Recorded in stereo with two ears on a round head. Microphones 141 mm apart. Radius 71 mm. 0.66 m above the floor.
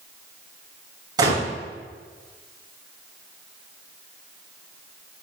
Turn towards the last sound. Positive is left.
turn(degrees=-25)  # may be behind; listen again after turning